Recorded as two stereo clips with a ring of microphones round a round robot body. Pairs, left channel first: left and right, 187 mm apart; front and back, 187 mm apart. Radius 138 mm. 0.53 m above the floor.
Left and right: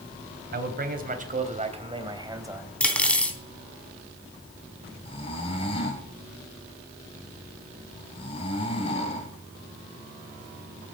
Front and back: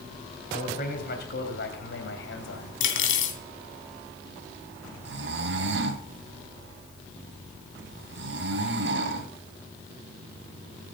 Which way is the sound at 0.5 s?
60° right.